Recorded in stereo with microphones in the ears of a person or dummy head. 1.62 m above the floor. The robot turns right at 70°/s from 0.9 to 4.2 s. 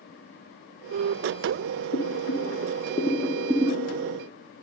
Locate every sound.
1.9 s boiling: 65° left (ahead or behind), 0.6 m; by 4.1 s 45° right (ahead or behind), 0.6 m